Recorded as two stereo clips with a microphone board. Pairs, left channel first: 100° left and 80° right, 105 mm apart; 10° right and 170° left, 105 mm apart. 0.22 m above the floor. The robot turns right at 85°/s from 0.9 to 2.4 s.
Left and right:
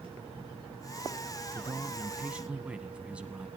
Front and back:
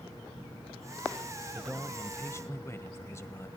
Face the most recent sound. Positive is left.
turn(degrees=-15)